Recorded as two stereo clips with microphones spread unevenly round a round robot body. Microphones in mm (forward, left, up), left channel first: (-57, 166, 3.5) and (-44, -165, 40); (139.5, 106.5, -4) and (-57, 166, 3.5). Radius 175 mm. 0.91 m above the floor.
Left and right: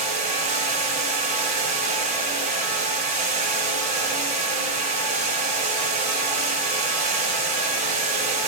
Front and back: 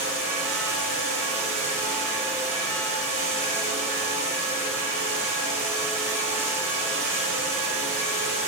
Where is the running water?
155° right, 5 m.